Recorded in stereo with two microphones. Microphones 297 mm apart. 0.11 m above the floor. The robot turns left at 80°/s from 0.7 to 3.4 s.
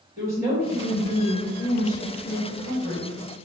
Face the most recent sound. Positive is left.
turn(degrees=-20)